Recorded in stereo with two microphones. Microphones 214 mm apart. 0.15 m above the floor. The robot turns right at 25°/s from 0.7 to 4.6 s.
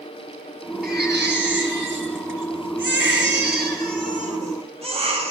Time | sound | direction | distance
0.8 | a baby crying | 125° right | 1.8 m